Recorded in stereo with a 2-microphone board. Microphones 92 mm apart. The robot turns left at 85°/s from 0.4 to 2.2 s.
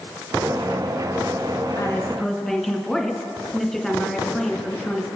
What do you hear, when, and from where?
1.8 s a woman speaking: 40° left, 2 m; by 5.1 s straight ahead, 2 m